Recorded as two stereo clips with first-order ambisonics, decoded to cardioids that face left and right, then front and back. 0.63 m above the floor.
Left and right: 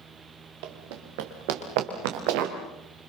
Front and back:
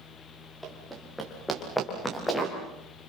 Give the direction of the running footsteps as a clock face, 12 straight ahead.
3 o'clock.